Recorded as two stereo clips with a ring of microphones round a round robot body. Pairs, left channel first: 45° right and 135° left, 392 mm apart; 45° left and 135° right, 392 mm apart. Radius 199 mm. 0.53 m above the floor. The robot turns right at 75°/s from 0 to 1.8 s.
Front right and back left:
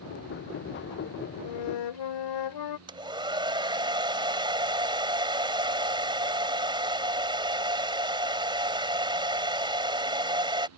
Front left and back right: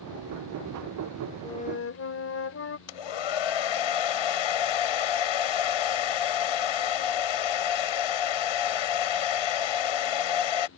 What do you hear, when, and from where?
1.4 s a flute: 40° right; by 2.8 s 10° right
2.9 s a hair dryer: 55° left